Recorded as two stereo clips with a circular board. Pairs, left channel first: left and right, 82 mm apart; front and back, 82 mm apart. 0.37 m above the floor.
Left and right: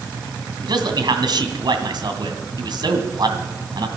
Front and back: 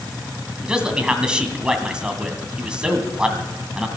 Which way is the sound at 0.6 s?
100° right.